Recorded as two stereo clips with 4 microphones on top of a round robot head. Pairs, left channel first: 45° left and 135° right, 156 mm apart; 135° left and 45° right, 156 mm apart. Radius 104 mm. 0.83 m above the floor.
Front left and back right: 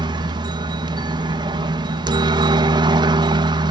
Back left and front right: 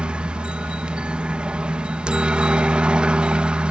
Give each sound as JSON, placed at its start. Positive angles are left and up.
{"t": 0.0, "sound": "a helicopter", "azimuth_deg": -125}